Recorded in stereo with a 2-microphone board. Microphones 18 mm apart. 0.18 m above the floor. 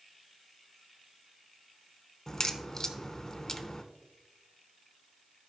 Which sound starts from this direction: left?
A crack, at 2.3 s.